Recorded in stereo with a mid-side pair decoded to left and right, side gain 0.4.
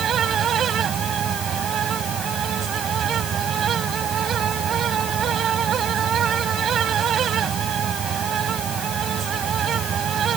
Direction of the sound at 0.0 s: 65° right.